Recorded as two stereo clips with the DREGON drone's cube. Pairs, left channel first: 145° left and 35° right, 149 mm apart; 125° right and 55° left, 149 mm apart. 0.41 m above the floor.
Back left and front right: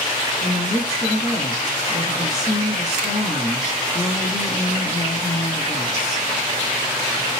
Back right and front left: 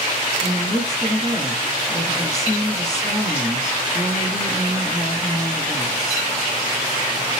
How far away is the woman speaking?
About 3 m.